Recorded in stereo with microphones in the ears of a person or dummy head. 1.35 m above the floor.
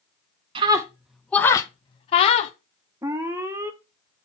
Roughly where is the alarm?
Centre.